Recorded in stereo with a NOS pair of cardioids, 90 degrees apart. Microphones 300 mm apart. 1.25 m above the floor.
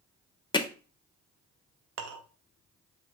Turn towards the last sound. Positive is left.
turn(degrees=-55)